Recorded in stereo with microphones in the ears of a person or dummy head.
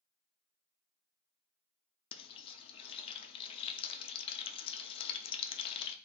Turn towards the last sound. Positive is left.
turn(degrees=25)  # may be behind; listen again after turning